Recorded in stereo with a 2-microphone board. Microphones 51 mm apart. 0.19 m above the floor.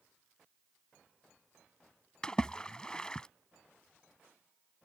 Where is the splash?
15° left (ahead or behind).